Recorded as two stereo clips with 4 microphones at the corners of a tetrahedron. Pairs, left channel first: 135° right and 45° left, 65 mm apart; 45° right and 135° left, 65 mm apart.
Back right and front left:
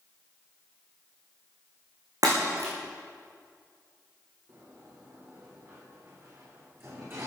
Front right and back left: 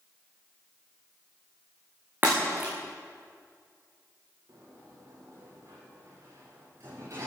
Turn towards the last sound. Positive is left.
turn(degrees=95)